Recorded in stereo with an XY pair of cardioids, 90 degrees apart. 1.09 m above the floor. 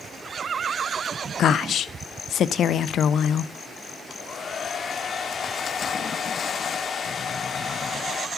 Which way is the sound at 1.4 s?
70° left.